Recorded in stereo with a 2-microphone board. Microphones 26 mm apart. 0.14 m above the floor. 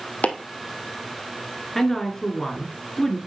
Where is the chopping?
80° left, 1.3 m.